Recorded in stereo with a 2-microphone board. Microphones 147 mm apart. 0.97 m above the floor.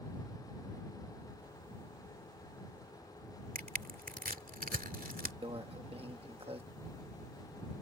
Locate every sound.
3.5 s crushing: 75° right (ahead or behind)
5.4 s a microwave: 40° right (ahead or behind)